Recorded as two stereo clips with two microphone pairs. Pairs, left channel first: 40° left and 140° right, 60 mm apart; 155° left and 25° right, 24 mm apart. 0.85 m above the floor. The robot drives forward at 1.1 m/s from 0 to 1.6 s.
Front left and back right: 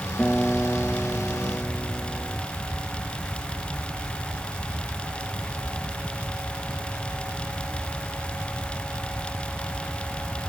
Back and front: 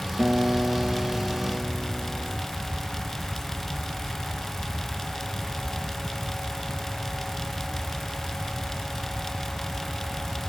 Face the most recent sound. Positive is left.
turn(degrees=-50)